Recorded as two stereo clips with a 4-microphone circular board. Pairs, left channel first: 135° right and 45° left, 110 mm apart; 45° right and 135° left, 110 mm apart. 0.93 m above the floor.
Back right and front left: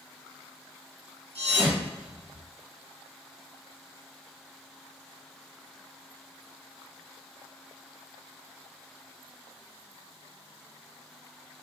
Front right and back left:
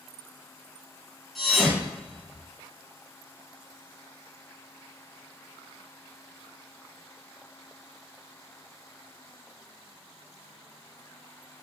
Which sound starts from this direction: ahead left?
A thud, at 1.4 s.